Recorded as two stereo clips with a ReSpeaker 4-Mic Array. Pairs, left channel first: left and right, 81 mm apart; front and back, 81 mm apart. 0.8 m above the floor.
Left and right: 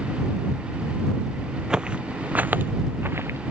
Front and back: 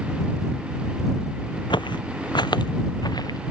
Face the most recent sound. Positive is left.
turn(degrees=-30)